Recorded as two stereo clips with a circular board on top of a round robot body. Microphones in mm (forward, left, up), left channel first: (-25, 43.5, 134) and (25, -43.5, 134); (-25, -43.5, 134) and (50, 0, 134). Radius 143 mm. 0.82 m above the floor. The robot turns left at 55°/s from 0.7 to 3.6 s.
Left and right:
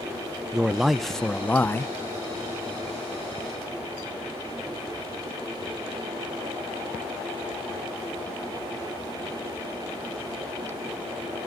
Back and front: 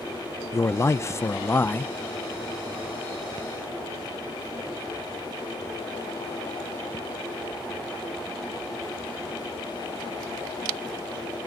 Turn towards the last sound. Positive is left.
turn(degrees=65)